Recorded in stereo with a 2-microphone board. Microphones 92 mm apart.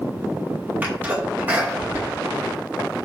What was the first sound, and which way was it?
A sneeze, 20° right (ahead or behind).